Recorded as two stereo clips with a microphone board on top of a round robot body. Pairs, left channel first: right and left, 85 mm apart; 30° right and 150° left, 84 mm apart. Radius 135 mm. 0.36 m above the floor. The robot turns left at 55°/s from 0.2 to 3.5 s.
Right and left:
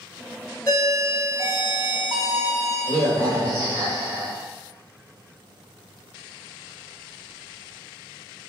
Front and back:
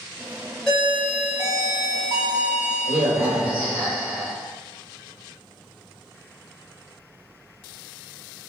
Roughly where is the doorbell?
Behind right.